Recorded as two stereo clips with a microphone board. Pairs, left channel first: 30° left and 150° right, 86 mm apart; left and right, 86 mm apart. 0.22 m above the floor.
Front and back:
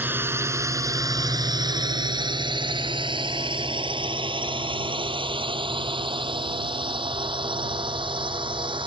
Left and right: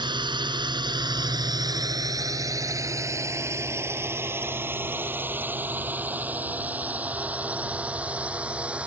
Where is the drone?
85° right; by 8.9 s 165° right.